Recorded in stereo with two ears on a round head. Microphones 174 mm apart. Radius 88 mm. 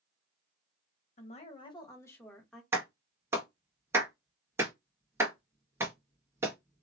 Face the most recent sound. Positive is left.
turn(degrees=-15)  # may be behind; listen again after turning